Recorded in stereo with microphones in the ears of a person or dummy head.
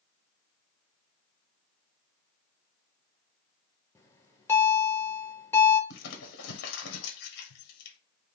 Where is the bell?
15° left (ahead or behind), 1.1 m.